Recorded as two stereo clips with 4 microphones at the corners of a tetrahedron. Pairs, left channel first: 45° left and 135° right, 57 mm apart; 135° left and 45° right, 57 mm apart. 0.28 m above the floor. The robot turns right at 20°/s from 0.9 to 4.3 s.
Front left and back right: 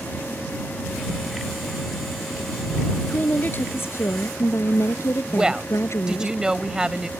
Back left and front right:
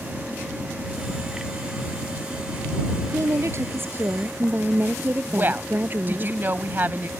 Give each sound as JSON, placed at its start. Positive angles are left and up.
{"t": 3.0, "sound": "a woman speaking", "azimuth_deg": -15}
{"t": 5.3, "sound": "a woman speaking", "azimuth_deg": -65}